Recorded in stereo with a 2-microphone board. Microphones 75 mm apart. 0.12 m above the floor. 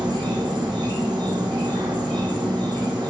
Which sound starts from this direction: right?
An insect, at 0.0 s.